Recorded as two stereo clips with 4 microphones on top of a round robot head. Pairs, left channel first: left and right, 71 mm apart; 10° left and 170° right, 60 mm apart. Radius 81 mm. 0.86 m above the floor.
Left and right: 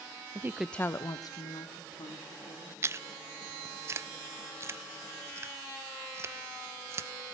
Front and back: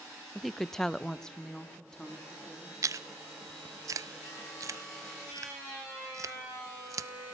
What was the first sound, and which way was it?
A woman speaking, 85° right.